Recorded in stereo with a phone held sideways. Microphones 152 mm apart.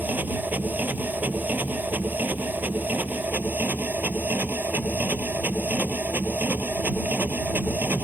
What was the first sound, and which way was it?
A machine running, 10° right (ahead or behind).